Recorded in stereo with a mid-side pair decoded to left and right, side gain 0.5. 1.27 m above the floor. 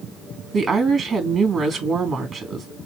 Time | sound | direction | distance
0.5 | a woman speaking | 50° right | 3 m